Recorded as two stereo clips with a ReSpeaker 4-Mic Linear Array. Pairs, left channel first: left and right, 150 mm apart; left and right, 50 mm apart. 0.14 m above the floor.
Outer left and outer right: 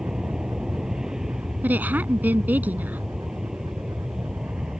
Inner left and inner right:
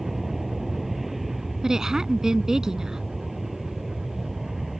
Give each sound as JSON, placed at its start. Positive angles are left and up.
{"t": 0.0, "sound": "an aircraft", "side_deg": -5}
{"t": 1.6, "sound": "a woman speaking", "side_deg": -10}